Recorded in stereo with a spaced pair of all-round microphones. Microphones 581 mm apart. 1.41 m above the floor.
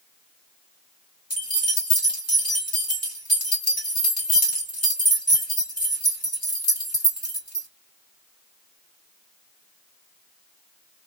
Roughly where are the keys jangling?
Left.